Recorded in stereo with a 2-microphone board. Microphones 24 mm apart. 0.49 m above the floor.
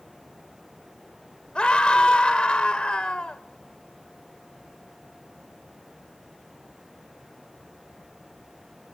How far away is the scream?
About 1.4 m.